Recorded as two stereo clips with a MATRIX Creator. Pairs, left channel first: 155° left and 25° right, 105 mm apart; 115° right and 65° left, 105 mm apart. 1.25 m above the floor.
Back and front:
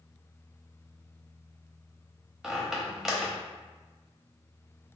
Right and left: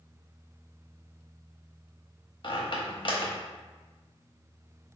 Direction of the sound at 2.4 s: 110° right.